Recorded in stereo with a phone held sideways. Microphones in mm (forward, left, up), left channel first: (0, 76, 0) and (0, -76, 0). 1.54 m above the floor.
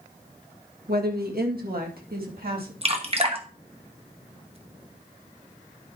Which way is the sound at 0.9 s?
85° right.